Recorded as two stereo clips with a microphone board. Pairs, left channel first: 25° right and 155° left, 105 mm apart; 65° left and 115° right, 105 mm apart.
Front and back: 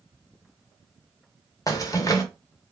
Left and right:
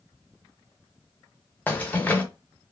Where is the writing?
I don't hear writing.